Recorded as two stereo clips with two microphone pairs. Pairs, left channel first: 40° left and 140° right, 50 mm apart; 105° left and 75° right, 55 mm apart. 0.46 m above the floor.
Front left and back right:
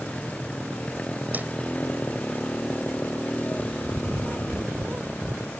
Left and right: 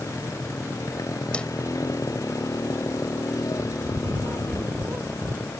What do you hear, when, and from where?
0.0 s a motorcycle: 105° left; by 5.6 s 100° left
1.3 s a whoosh: 175° left
3.6 s a bird: 85° right